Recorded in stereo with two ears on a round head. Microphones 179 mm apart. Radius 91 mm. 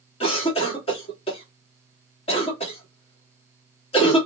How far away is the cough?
About 1.6 m.